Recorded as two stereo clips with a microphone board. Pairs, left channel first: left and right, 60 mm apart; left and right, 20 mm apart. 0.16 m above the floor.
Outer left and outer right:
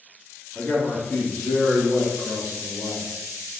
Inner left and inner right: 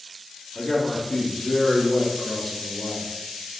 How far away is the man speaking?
About 1.1 m.